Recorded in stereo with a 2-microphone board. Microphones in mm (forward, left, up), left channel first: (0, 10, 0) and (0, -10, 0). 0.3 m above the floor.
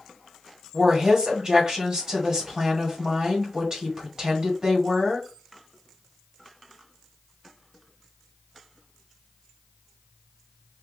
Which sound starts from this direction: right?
A woman speaking, at 0.7 s.